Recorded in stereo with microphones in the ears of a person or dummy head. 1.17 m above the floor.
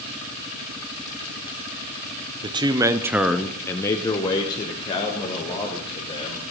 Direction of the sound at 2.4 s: 20° right (ahead or behind).